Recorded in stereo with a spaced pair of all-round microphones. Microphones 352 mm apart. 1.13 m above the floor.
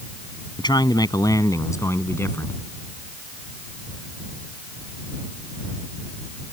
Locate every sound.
0.6 s a man speaking: 10° left (ahead or behind); by 2.6 s 5° left (ahead or behind)